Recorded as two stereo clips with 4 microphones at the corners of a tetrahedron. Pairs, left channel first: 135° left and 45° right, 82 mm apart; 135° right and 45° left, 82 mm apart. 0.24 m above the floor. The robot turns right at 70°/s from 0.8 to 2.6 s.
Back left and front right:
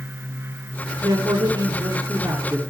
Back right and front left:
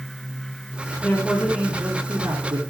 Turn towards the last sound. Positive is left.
turn(degrees=35)